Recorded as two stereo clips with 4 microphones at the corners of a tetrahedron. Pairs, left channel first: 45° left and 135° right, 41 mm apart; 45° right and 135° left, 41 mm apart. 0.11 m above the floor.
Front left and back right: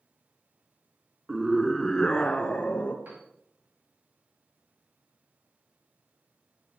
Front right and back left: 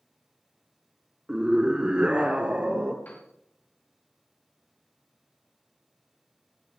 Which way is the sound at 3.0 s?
90° right.